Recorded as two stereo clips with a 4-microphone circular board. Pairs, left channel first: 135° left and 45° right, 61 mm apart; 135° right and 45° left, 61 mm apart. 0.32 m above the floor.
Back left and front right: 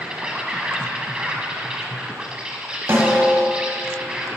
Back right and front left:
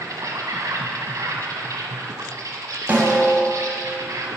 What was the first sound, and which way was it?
An insect, 30° left.